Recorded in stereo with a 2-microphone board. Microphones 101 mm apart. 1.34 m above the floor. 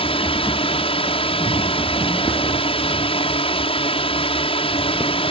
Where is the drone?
70° left (ahead or behind).